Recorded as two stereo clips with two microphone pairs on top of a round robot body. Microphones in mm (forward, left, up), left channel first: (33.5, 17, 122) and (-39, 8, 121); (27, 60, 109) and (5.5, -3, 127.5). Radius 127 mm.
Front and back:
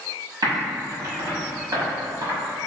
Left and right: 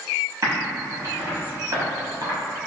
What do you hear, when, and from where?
0.4 s typing on a keyboard: 150° right, 1.1 m